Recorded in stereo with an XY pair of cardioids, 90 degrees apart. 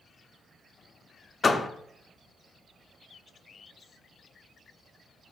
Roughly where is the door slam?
Ahead left.